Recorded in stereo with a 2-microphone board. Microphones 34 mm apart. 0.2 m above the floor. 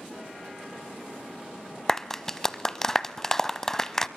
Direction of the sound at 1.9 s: 10° left (ahead or behind).